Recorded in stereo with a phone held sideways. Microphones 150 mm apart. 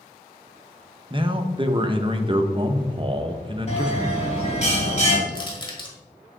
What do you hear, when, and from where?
1.1 s a man speaking: 35° right (ahead or behind), 0.7 m
3.7 s a bell: 45° left (ahead or behind), 1.7 m
5.3 s crushing: 30° left (ahead or behind), 1.5 m